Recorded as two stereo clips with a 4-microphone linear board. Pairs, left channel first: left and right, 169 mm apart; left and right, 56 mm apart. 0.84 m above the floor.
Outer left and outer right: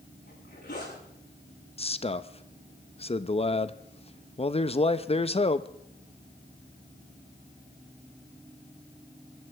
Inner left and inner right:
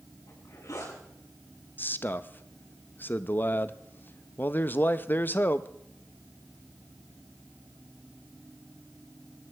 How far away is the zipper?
About 7.5 m.